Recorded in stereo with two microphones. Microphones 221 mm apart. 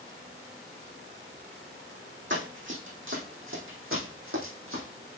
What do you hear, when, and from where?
2.3 s running footsteps: 60° right (ahead or behind), 4 m; by 4.8 s 70° right (ahead or behind), 4 m